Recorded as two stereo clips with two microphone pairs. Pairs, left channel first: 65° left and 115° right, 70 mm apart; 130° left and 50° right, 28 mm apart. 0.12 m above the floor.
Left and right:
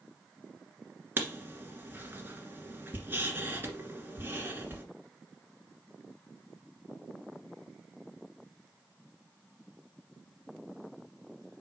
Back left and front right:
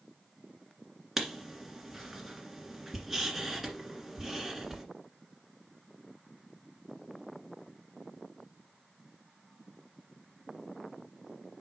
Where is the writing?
125° right, 1.8 m.